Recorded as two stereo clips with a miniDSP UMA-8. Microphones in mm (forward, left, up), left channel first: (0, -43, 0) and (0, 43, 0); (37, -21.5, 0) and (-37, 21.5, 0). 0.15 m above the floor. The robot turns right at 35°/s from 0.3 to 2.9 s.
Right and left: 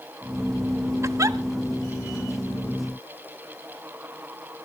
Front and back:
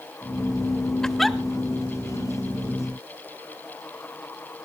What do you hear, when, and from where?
1.0 s a giggle: 50° left, 0.6 m; by 1.4 s 60° left, 0.6 m